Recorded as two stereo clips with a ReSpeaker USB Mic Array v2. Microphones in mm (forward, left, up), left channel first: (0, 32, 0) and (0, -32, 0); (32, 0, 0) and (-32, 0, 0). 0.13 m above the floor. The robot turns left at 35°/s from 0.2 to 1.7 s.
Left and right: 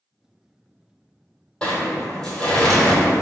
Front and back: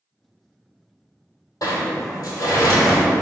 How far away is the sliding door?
About 1.0 m.